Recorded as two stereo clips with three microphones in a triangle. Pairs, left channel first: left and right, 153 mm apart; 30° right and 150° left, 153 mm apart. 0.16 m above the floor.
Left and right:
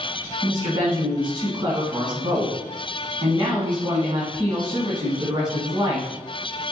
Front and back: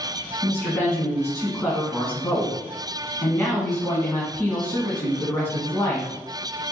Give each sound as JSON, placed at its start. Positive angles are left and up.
{"t": 0.4, "sound": "a woman speaking", "azimuth_deg": -90, "distance_m": 1.4}